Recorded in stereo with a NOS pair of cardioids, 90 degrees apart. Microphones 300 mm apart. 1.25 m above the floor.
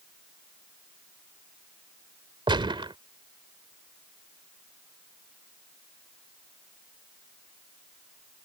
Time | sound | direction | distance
2.5 | a gunshot | 15° right | ?